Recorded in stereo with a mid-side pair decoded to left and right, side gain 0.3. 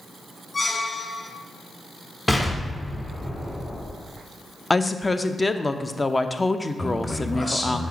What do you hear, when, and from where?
0.5 s a squeak: 30° left, 0.7 m
2.3 s an explosion: 15° left, 1.8 m
4.7 s a woman speaking: 30° left, 0.6 m
6.8 s a man speaking: 30° left, 2 m